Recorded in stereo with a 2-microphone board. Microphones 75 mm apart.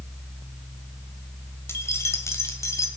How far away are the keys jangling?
About 1.4 m.